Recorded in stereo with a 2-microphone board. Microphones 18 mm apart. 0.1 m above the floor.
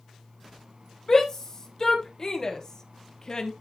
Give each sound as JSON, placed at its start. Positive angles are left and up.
{"t": 1.1, "sound": "a shout", "side_deg": 25, "distance_m": 3.5}